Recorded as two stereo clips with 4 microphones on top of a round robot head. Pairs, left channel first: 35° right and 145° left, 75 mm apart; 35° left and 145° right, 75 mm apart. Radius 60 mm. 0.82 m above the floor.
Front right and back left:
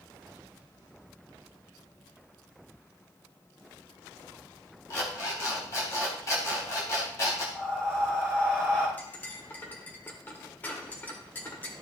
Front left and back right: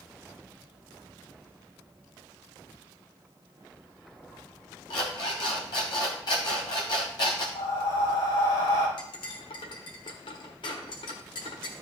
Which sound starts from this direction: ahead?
An alarm clock, at 4.9 s.